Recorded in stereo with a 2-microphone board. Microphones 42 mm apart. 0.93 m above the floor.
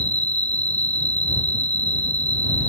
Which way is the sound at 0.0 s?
40° left (ahead or behind).